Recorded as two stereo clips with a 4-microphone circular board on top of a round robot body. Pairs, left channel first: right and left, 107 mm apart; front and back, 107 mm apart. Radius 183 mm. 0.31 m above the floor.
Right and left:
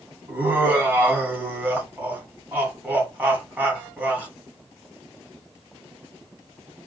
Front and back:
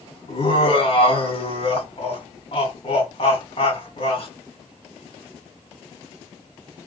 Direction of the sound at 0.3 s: 20° left.